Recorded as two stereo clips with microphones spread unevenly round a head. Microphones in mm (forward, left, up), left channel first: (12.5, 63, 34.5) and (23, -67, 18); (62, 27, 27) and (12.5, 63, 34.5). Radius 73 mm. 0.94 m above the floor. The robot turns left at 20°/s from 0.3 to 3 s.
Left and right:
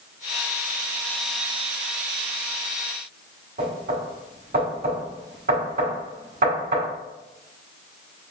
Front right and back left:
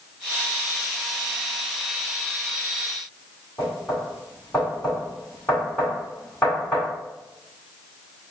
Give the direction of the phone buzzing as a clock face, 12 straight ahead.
No phone buzzing in this recording.